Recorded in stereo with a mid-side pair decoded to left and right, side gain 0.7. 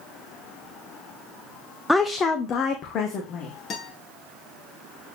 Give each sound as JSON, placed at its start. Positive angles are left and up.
{"t": 1.9, "sound": "a woman speaking", "azimuth_deg": 5, "distance_m": 0.7}
{"t": 3.7, "sound": "a guitar", "azimuth_deg": 40, "distance_m": 2.5}